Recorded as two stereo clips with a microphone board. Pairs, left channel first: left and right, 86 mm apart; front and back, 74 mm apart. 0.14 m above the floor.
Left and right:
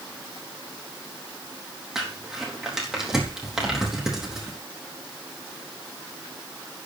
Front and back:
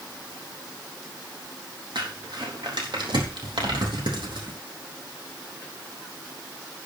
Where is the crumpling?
175° right, 4 m.